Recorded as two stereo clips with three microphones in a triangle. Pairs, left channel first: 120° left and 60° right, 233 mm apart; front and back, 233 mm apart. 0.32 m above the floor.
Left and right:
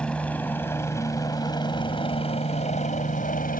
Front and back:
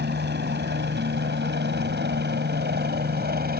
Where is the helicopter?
155° right; by 3.6 s 155° left.